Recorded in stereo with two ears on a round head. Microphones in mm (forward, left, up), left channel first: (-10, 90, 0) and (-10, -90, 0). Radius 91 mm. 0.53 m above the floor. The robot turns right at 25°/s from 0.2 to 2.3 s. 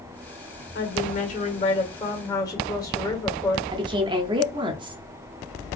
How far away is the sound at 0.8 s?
About 1.5 m.